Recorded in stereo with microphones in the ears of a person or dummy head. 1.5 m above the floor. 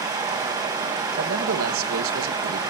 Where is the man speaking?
80° right, 2.5 m.